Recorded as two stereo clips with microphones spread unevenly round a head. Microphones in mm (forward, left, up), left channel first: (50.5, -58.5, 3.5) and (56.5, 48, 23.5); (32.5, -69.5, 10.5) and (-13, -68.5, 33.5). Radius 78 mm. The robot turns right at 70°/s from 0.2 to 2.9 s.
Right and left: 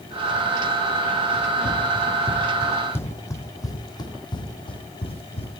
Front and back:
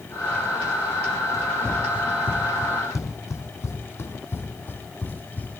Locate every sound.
1.3 s running footsteps: 110° right, 2.5 m; by 5.6 s 70° right, 2 m